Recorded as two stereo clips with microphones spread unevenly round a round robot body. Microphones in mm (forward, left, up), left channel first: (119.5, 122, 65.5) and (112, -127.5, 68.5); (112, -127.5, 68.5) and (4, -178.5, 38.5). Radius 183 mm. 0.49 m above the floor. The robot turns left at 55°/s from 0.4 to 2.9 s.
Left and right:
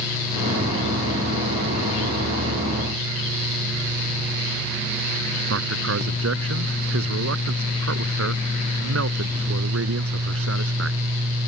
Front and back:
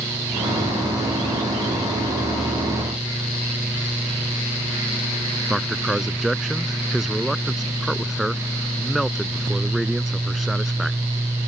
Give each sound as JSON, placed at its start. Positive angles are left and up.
{"t": 5.5, "sound": "a man speaking", "azimuth_deg": -65}